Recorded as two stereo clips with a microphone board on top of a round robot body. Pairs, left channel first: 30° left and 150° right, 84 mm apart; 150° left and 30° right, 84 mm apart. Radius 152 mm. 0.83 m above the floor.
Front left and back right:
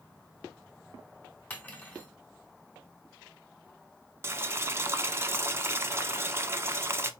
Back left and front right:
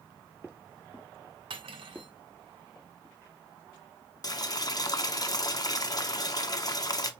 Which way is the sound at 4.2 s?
160° left.